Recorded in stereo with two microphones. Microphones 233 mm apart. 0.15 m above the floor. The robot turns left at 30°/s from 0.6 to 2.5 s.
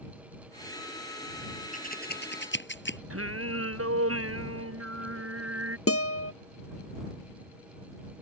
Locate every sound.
1.7 s scissors: 35° left (ahead or behind); by 3.0 s 55° left (ahead or behind)
3.1 s singing: 75° right (ahead or behind)
5.9 s a guitar: 75° left (ahead or behind)